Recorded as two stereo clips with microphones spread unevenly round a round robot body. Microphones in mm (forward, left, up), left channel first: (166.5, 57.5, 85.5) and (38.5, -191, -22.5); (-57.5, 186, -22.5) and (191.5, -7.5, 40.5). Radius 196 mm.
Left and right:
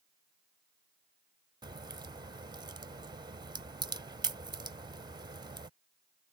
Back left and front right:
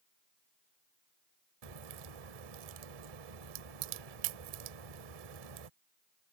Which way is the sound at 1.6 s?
45° right.